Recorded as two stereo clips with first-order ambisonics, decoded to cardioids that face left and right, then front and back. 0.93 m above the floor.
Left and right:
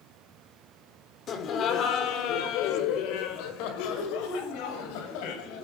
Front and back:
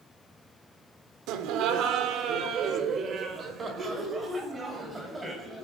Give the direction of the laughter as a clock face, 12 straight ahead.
7 o'clock.